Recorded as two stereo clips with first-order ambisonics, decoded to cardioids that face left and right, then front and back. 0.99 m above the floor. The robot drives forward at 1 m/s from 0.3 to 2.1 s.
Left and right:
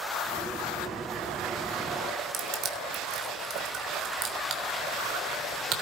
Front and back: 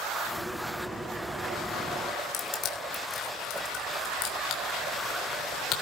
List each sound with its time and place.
2.3 s crushing: 45° right, 3.5 m